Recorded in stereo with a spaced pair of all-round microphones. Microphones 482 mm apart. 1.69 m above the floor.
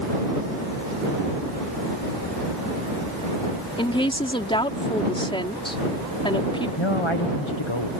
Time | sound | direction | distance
3.8 | a woman speaking | 10° left (ahead or behind) | ?
6.8 | a man speaking | 70° left (ahead or behind) | ?